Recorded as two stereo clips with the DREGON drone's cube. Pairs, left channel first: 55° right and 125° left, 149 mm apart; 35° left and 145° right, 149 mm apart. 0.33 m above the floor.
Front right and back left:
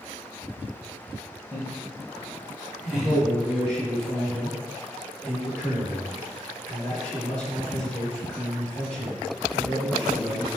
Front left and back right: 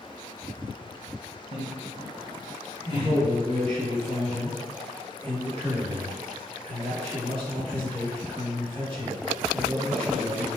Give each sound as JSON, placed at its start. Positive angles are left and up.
{"t": 1.5, "sound": "laughter", "azimuth_deg": 70, "distance_m": 1.8}
{"t": 2.9, "sound": "a man speaking", "azimuth_deg": -135, "distance_m": 1.8}